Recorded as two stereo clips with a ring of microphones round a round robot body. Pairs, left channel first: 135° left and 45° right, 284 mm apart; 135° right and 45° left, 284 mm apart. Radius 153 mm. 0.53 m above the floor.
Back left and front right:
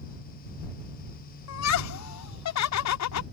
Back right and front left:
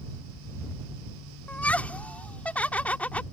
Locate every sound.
1.5 s laughter: 140° left